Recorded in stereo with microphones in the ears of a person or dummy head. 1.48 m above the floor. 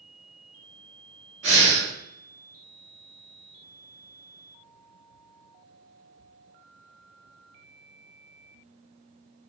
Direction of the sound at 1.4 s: 40° right (ahead or behind).